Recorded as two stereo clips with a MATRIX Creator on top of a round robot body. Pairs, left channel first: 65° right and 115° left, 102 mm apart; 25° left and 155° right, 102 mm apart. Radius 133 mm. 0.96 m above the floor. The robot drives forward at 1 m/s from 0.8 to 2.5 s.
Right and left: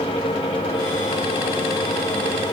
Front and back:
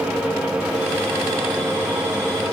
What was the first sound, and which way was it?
Only background noise.